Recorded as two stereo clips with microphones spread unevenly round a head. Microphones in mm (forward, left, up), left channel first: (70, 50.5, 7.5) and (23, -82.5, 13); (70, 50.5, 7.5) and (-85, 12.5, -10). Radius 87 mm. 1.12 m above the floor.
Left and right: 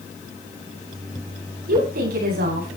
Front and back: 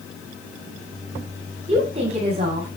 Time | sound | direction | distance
1.7 | a woman speaking | 110° right | 9 m